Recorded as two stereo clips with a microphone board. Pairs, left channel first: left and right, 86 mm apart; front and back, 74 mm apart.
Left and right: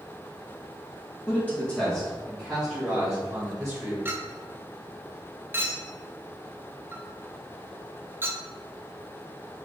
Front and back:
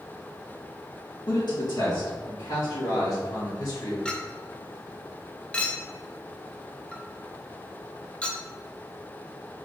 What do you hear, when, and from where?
1.3 s a man speaking: 20° left, 1.5 m; by 4.0 s 10° right, 2.5 m
4.0 s a clink: 60° right, 0.5 m